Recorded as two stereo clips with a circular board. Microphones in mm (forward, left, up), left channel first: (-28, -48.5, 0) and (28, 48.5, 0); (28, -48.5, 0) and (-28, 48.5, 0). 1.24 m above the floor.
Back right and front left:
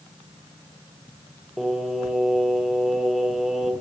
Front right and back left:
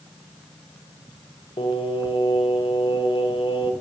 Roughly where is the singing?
Ahead right.